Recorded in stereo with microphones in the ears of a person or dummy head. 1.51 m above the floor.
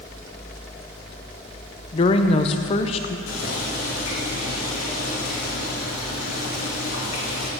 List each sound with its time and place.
1.9 s a woman speaking: 35° left (ahead or behind), 0.7 m
3.3 s boiling: 85° left, 2.5 m